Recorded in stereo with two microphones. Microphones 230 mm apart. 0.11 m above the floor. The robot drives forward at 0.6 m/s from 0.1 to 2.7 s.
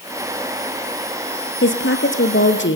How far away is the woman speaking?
About 2 m.